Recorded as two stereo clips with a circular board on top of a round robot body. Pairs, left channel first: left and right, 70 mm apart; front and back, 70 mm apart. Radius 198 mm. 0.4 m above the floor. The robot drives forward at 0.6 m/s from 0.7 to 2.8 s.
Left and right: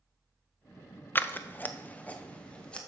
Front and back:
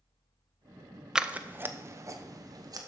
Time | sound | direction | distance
1.1 | scissors | 110° left | 0.8 m